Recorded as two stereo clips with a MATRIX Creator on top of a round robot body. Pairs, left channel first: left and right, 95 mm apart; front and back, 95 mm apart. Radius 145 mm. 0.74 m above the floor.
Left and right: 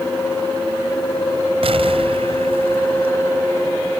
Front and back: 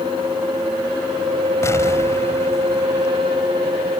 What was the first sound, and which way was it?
An explosion, 65° right.